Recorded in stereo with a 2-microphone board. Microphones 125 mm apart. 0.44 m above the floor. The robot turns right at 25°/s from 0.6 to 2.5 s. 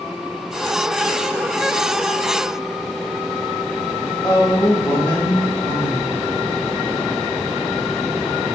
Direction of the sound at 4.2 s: 20° left (ahead or behind).